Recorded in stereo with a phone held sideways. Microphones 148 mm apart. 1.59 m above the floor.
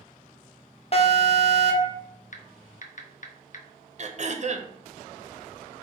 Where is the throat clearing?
50° right (ahead or behind), 0.5 m.